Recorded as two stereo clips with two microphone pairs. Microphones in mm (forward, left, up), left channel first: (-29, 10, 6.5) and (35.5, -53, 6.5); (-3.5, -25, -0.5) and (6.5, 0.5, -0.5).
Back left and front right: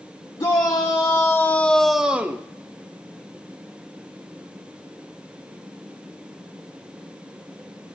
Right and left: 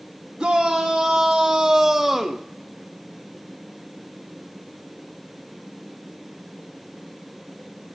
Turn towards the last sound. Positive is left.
turn(degrees=-5)